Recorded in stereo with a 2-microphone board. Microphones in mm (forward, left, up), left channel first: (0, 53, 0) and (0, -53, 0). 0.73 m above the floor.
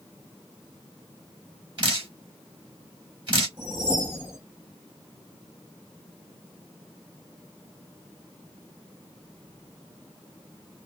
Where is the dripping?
50° right (ahead or behind), 2.5 m.